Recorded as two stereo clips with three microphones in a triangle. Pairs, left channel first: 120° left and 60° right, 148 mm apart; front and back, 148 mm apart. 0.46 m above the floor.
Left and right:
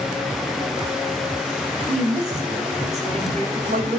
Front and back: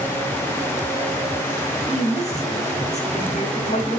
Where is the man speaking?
30° right, 2.5 m.